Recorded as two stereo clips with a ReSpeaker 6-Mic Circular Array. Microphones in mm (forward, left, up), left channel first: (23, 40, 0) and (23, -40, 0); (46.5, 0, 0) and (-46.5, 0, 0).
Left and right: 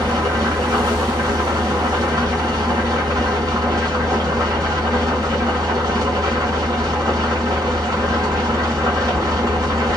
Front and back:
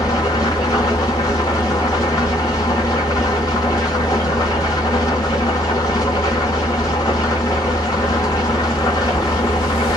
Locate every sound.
0.0 s an engine running: 45° right, 1.6 m